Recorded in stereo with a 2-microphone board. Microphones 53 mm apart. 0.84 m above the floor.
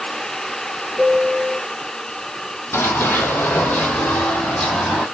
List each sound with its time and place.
1.0 s a piano: 30° right (ahead or behind), 3 m
2.7 s running footsteps: 45° left (ahead or behind), 1.8 m; by 5.1 s 5° left (ahead or behind), 2 m